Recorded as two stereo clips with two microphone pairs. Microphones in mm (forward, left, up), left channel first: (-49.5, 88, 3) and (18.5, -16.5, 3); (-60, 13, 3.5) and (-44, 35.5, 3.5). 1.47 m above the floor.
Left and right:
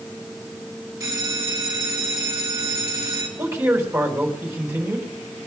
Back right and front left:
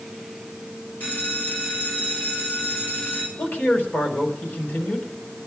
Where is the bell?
115° right, 3.5 m.